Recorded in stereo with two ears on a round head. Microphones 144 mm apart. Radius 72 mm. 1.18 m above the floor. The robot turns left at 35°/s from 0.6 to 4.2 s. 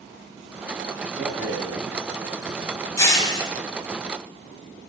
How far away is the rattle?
About 3 m.